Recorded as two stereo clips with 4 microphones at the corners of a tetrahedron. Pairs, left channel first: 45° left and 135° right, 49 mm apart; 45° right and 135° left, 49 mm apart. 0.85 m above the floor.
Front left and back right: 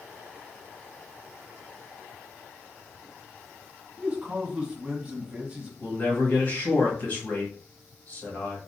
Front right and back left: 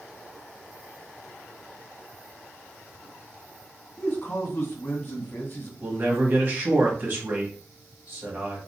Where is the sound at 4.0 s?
70° right, 1.5 m.